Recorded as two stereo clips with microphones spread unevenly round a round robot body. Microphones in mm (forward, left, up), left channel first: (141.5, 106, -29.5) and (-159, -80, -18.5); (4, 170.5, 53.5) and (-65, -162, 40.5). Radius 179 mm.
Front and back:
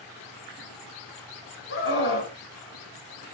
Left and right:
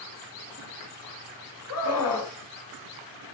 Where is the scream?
80° left, 2.0 m.